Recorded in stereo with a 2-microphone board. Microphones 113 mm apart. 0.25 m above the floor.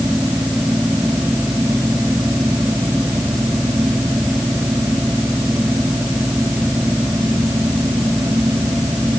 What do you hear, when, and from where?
Only background noise.